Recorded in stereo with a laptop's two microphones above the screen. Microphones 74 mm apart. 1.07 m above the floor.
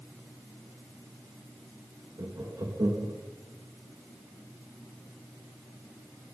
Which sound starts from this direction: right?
Laughter, at 2.2 s.